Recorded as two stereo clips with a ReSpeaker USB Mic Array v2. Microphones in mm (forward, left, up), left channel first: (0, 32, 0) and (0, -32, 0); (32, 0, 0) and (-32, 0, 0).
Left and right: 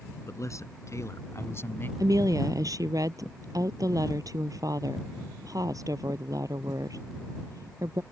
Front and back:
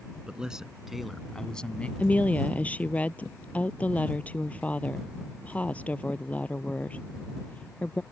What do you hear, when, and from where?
0.3 s a man speaking: 105° left; by 1.9 s 60° left
2.0 s a woman speaking: 65° right